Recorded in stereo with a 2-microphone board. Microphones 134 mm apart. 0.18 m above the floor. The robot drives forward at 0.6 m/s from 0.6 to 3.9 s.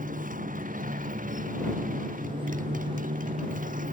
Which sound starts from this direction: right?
A motorcycle, at 0.0 s.